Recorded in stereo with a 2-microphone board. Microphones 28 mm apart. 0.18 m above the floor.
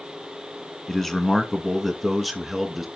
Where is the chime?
No chime in this recording.